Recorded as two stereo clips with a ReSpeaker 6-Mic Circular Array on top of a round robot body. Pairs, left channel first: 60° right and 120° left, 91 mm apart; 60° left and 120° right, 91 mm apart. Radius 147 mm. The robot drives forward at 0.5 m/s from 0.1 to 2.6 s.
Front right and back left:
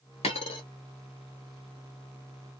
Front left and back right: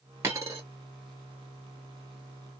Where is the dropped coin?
60° right, 0.9 m; by 0.6 s 75° right, 0.8 m.